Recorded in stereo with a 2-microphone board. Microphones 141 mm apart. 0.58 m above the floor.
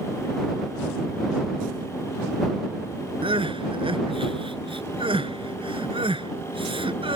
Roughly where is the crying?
Right.